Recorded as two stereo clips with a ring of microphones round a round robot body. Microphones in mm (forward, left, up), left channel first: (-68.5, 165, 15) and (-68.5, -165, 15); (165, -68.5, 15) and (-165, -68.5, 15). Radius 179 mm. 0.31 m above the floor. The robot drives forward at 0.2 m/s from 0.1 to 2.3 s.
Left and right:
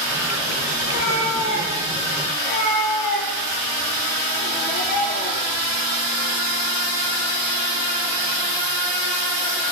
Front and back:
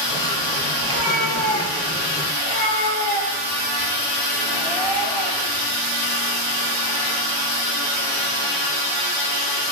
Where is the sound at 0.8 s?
135° left, 6 m; by 2.3 s 140° left, 6 m.